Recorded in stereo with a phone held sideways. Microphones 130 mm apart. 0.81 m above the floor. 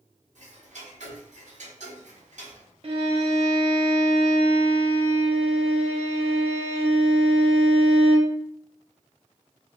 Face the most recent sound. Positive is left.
turn(degrees=-50)  # may be behind; listen again after turning